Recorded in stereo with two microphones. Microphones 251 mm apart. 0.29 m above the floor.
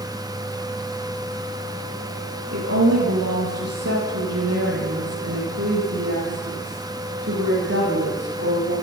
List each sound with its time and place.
2.5 s a woman speaking: 70° right (ahead or behind), 8.5 m